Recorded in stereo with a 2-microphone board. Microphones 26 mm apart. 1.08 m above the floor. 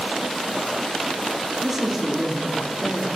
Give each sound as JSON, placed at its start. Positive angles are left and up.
{"t": 1.6, "sound": "a man speaking", "side_deg": -10, "distance_m": 2.5}